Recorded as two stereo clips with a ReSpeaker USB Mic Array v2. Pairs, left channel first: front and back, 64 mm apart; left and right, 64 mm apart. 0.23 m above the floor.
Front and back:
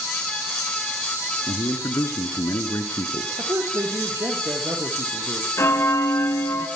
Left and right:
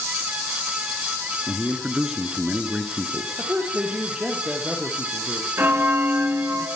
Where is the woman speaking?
160° right, 6 m.